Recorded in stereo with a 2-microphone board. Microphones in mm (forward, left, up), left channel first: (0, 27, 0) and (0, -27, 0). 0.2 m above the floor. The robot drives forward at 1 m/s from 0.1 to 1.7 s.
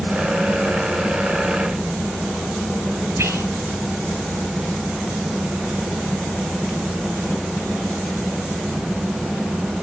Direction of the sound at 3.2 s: 55° right (ahead or behind).